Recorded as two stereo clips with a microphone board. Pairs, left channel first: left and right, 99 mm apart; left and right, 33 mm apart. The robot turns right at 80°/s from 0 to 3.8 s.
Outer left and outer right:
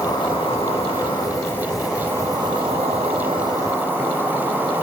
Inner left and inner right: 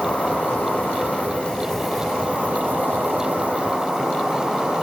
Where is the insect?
35° left, 6.5 m; by 4.8 s 20° right, 6.5 m.